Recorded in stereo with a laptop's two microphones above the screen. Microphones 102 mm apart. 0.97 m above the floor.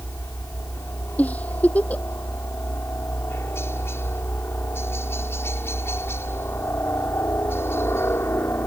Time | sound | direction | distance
0.0 | a helicopter | 25° left (ahead or behind) | ?
1.2 | a giggle | 15° left (ahead or behind) | ?